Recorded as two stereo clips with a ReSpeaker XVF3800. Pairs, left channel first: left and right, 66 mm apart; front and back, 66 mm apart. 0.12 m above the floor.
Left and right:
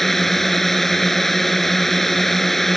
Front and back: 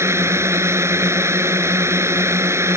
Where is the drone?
175° left.